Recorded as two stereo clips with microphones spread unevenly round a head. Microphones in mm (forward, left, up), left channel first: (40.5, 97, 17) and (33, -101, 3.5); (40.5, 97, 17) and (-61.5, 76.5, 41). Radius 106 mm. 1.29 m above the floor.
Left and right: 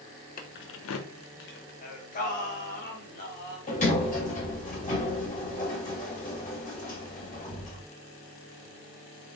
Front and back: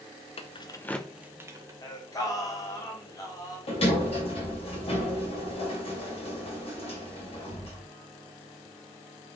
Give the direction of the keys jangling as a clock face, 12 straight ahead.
11 o'clock.